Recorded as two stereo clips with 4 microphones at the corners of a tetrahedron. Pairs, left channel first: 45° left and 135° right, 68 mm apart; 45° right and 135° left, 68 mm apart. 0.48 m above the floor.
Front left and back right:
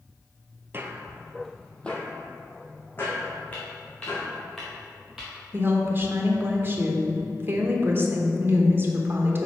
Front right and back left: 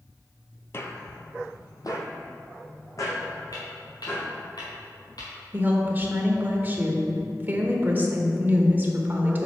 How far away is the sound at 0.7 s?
About 0.7 m.